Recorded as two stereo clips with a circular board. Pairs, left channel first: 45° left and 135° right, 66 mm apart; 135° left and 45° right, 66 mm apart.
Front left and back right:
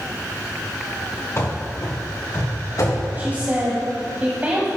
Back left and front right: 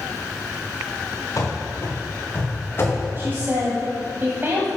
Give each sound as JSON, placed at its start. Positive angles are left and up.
{"t": 1.4, "sound": "running footsteps", "azimuth_deg": 90, "distance_m": 2.5}
{"t": 3.2, "sound": "a woman speaking", "azimuth_deg": -80, "distance_m": 1.4}